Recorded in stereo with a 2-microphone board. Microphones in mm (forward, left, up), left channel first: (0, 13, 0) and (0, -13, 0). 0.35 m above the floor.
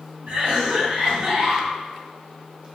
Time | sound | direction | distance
0.3 | a cough | 45° right (ahead or behind) | 1.9 m